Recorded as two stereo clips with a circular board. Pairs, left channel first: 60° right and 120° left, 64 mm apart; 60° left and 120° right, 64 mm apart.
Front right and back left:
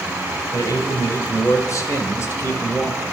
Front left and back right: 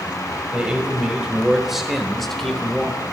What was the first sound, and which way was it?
A man speaking, 45° right.